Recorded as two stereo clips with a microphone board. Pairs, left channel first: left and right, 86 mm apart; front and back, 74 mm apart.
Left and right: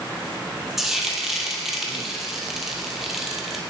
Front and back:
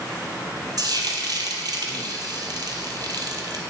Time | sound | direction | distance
0.8 | frying | 175° right | 1.3 m